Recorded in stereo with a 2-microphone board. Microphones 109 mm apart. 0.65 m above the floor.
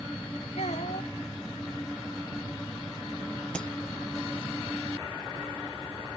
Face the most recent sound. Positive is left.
turn(degrees=10)  # may be behind; listen again after turning